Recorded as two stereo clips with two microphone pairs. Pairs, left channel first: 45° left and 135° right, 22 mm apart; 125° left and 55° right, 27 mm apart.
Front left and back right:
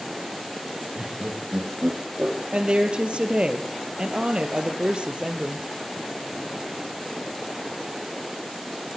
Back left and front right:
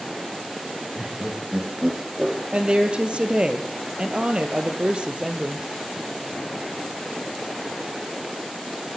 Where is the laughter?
110° right, 6 m; by 2.4 s 120° right, 6.5 m.